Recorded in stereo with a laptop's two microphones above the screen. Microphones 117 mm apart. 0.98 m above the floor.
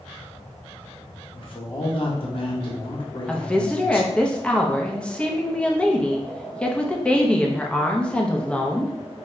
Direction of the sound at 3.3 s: 10° left (ahead or behind).